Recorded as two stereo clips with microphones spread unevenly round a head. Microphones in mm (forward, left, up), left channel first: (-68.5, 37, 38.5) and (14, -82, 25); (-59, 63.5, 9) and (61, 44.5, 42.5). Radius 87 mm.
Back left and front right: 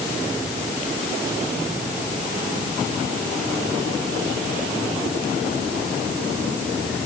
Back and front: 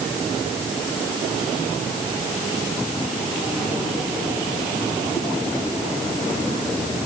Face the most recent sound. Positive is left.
No sound to turn to.